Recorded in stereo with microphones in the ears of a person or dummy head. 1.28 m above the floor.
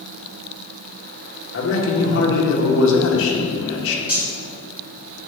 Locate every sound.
1.5 s a man speaking: 75° left (ahead or behind), 1.8 m
4.1 s cutlery clinking: 10° right (ahead or behind), 2.5 m